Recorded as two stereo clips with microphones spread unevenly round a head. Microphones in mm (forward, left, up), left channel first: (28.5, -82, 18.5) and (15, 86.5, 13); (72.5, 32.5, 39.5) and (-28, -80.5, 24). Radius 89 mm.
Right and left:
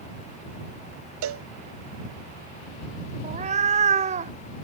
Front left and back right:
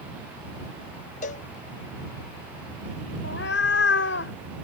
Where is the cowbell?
100° left.